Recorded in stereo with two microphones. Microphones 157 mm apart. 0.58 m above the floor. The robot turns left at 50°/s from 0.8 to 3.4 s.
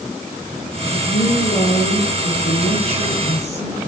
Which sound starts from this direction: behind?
A woman speaking, at 0.9 s.